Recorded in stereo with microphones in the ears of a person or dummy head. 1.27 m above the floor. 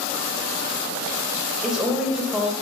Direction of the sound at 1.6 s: 5° right (ahead or behind).